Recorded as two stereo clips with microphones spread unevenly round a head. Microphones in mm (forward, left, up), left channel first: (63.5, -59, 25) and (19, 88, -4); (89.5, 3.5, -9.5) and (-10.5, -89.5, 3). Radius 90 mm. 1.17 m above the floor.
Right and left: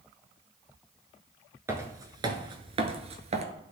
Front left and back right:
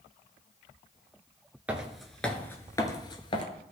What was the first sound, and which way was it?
Footsteps, 175° right.